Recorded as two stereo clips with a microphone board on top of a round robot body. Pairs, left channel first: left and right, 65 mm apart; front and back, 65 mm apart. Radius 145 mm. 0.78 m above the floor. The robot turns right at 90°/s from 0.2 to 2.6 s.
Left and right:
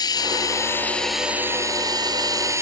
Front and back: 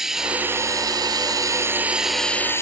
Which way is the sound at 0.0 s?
95° left.